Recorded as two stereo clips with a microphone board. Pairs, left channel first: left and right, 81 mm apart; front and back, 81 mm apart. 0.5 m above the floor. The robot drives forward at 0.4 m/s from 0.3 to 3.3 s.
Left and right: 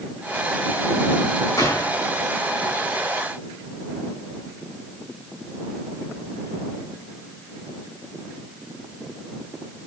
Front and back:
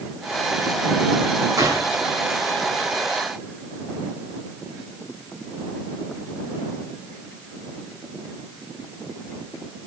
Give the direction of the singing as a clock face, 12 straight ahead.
No singing in this recording.